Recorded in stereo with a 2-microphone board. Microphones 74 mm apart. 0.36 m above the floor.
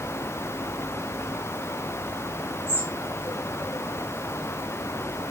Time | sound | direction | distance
2.7 | a bird | 25° right (ahead or behind) | 8 m